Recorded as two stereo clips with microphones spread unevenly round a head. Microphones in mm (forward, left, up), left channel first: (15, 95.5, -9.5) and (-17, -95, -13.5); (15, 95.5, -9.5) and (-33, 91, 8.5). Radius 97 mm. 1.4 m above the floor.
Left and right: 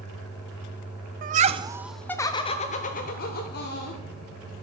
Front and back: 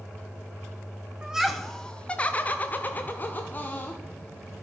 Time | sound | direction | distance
1.2 | laughter | 75° right | 0.5 m